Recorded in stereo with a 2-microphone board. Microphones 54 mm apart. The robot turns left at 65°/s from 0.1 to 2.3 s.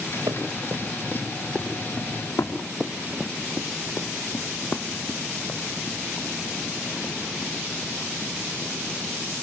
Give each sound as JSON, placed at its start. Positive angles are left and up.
{"t": 0.3, "sound": "running footsteps", "side_deg": -85, "distance_m": 5.5}
{"t": 2.8, "sound": "running footsteps", "side_deg": 5, "distance_m": 1.1}